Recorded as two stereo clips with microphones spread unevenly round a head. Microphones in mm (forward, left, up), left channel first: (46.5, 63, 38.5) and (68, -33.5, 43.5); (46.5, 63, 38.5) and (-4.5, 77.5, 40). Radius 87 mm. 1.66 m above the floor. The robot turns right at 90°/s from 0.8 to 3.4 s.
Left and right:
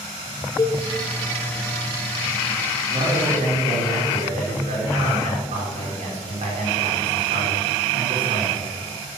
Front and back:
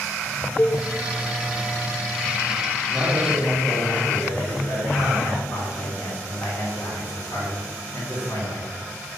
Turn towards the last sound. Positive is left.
turn(degrees=-80)